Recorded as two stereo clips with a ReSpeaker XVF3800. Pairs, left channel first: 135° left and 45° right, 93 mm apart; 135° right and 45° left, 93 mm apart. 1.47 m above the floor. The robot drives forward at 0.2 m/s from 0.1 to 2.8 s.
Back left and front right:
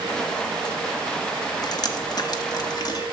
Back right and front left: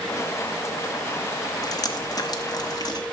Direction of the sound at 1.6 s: Straight behind.